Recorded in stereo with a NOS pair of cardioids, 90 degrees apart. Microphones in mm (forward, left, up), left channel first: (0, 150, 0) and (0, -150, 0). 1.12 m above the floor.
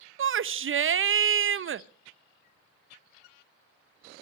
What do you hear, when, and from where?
0.2 s a shout: 40° right, 0.9 m